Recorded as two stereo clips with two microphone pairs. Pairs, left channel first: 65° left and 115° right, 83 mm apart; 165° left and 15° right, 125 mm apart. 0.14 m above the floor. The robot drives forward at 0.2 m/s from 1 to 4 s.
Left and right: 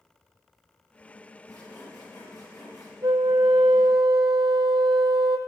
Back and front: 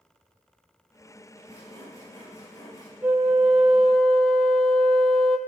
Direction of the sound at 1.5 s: 100° left.